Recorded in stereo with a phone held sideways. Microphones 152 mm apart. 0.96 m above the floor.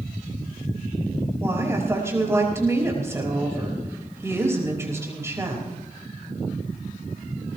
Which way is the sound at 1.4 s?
20° right (ahead or behind).